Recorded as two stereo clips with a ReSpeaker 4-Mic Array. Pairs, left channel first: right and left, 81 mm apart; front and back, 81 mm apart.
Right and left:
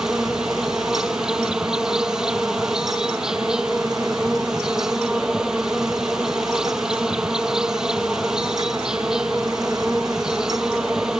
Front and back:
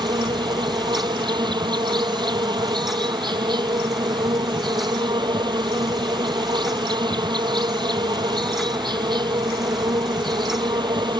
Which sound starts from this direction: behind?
An insect, at 0.0 s.